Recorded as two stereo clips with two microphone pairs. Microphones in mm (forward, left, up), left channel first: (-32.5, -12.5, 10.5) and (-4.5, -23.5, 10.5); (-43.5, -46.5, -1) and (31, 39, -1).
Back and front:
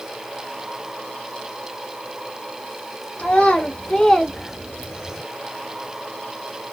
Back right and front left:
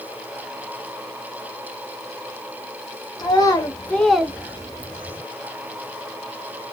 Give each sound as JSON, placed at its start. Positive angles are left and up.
{"t": 3.2, "sound": "a child speaking", "azimuth_deg": -170, "distance_m": 0.8}